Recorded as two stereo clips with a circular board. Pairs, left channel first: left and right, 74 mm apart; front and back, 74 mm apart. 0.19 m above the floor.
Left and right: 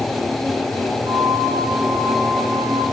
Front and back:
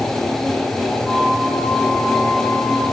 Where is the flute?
110° right, 6 m.